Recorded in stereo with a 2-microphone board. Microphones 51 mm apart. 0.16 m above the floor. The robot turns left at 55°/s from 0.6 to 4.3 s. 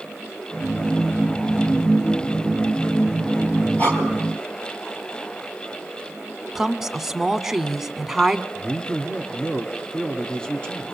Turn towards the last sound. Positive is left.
turn(degrees=20)  # may be behind; listen again after turning